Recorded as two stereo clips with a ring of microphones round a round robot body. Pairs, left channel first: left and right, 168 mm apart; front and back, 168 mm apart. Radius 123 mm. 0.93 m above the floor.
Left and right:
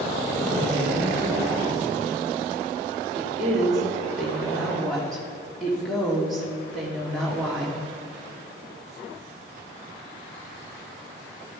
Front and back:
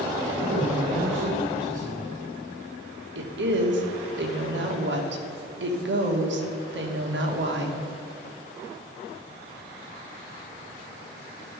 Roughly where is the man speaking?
Behind.